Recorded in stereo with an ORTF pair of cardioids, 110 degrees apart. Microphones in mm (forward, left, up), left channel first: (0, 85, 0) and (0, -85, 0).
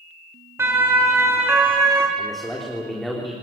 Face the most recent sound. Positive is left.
turn(degrees=0)